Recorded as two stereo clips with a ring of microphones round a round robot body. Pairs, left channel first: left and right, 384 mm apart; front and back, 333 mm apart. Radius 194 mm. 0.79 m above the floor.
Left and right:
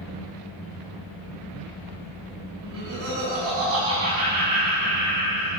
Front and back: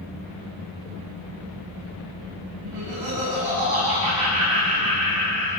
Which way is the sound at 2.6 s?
145° right.